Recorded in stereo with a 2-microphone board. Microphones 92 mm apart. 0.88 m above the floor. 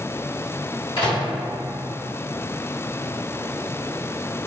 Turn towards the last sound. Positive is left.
turn(degrees=70)  # may be behind; listen again after turning